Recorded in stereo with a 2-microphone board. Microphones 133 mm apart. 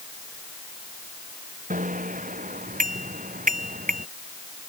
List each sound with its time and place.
1.7 s a bicycle bell: 80° right; by 4.1 s 85° right